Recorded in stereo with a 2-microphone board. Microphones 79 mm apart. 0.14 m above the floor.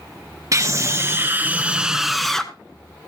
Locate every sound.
0.5 s a scream: 40° right (ahead or behind), 1.8 m; by 2.5 s 10° left (ahead or behind), 1.5 m